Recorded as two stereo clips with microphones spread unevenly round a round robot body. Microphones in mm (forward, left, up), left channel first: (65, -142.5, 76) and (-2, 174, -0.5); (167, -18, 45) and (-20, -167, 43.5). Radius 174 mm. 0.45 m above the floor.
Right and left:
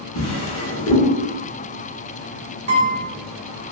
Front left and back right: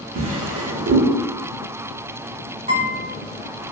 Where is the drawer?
135° right, 0.7 m.